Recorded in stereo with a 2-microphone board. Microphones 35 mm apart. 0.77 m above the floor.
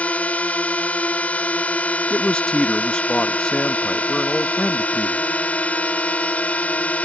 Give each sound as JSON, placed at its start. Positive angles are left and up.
{"t": 0.0, "sound": "a drone", "side_deg": 45}
{"t": 2.1, "sound": "a man speaking", "side_deg": 25}